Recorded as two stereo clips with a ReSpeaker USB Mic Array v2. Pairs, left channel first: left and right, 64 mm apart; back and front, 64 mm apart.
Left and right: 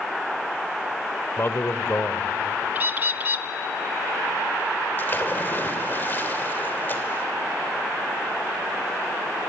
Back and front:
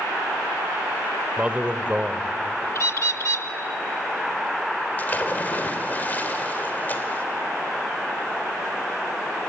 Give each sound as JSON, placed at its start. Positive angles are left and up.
{"t": 1.4, "sound": "a man speaking", "azimuth_deg": 60, "distance_m": 1.2}
{"t": 2.8, "sound": "a bird", "azimuth_deg": -145, "distance_m": 0.7}
{"t": 5.0, "sound": "a splash", "azimuth_deg": 130, "distance_m": 1.9}